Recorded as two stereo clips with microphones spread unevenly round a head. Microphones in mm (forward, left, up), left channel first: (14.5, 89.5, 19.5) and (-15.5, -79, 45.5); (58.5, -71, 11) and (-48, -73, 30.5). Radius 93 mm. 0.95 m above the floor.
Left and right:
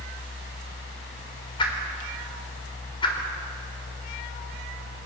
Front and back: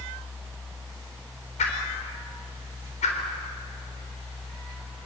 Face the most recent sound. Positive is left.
turn(degrees=15)